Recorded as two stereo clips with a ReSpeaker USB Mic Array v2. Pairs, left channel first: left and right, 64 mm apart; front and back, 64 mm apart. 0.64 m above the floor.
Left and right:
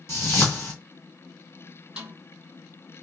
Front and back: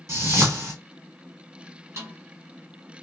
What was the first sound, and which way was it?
A whoosh, 135° left.